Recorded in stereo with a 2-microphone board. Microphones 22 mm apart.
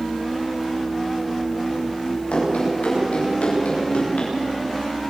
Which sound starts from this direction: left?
Running footsteps, at 2.3 s.